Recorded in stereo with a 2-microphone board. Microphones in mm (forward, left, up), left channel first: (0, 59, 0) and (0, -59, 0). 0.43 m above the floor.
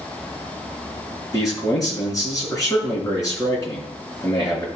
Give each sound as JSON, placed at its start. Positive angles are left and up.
{"t": 1.3, "sound": "a man speaking", "side_deg": 30, "distance_m": 4.0}